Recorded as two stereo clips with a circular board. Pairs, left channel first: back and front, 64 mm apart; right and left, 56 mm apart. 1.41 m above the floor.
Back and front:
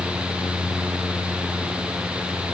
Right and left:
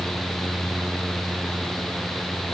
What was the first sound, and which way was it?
Only background noise.